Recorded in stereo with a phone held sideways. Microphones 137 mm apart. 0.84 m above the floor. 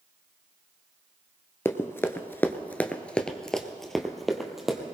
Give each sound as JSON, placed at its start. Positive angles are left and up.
{"t": 1.6, "sound": "running footsteps", "side_deg": 20, "distance_m": 0.9}